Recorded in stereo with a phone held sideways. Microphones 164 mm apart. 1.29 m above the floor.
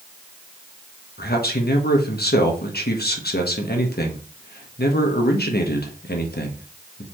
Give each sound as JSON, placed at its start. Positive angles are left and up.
{"t": 1.2, "sound": "a man speaking", "side_deg": 85, "distance_m": 1.4}